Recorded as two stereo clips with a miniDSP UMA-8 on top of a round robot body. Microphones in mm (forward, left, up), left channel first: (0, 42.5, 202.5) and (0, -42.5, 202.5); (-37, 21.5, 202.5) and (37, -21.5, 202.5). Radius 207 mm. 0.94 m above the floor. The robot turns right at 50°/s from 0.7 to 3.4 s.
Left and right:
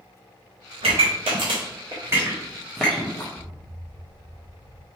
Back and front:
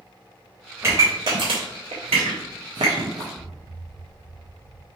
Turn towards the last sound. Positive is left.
turn(degrees=80)